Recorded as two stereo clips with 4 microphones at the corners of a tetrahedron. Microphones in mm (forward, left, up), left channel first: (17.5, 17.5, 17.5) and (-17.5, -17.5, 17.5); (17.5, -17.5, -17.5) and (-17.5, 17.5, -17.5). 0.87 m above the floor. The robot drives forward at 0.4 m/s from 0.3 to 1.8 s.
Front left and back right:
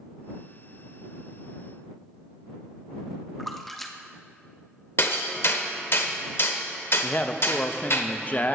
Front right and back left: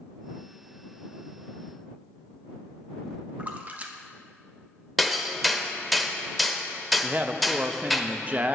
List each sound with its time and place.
3.4 s a splash: 130° left, 0.8 m
5.0 s hammering: 45° left, 0.8 m
7.0 s a man speaking: 90° left, 0.6 m